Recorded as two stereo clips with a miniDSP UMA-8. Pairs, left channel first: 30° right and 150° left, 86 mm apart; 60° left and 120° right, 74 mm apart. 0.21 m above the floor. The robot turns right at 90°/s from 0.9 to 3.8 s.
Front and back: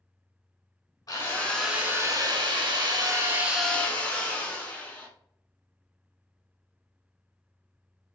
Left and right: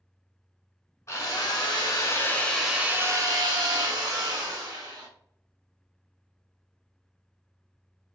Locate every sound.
1.1 s a drill: 15° left, 0.8 m; by 5.1 s 100° right, 0.8 m